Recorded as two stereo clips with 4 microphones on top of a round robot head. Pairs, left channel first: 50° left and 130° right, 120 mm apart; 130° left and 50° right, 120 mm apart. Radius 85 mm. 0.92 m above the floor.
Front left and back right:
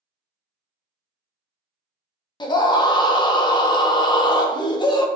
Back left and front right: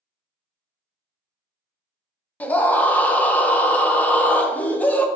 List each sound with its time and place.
2.4 s a scream: 60° left, 0.6 m